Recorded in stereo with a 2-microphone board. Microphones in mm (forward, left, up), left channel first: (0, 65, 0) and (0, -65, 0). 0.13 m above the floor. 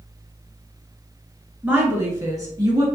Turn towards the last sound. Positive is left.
turn(degrees=-30)  # may be behind; listen again after turning